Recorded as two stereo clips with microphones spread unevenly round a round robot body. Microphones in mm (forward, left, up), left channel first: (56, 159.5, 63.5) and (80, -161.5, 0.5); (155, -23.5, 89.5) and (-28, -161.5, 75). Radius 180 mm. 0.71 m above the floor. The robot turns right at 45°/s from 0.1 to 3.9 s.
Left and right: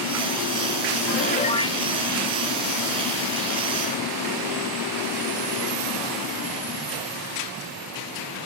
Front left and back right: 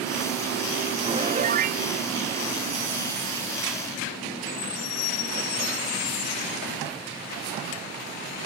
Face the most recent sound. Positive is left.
turn(degrees=-80)